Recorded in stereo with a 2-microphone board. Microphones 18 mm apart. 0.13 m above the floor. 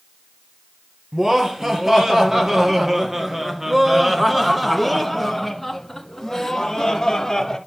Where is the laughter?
20° right (ahead or behind), 3 m; by 7.6 s 25° left (ahead or behind), 1.7 m.